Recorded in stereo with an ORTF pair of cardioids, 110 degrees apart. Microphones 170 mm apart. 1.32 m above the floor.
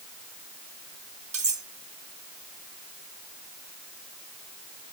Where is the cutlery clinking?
40° right, 1.3 m.